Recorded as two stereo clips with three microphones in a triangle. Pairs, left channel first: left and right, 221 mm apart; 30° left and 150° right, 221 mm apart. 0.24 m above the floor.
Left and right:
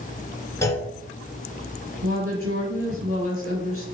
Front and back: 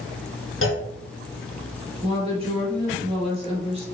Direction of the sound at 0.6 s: 15° left.